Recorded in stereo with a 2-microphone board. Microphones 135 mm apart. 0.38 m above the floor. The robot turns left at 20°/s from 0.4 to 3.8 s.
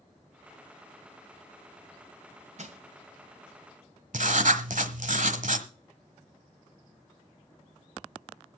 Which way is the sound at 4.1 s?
70° right (ahead or behind).